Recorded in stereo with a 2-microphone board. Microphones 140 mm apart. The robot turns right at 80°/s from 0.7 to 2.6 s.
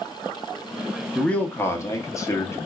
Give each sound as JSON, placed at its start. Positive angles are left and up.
{"t": 1.1, "sound": "a man speaking", "side_deg": 5, "distance_m": 0.7}